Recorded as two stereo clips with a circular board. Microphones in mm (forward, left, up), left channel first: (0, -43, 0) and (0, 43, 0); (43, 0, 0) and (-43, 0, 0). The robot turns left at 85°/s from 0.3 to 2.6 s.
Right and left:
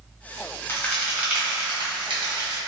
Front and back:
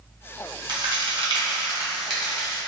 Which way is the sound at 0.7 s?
150° right.